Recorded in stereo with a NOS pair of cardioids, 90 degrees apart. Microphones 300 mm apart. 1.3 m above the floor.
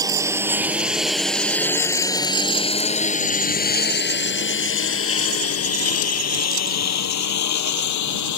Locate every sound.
0.0 s a lawn mower: 10° right; by 8.4 s 70° left